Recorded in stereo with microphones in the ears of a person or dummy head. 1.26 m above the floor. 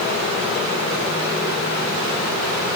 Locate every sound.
Only background noise.